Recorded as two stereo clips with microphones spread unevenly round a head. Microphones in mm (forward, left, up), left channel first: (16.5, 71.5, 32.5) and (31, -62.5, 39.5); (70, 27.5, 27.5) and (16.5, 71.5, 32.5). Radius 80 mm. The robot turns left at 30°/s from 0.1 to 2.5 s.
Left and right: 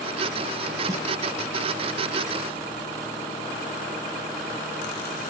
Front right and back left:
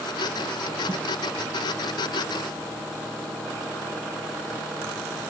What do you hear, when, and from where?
0.9 s a snare drum: 150° right, 0.7 m; by 1.1 s 155° right, 0.7 m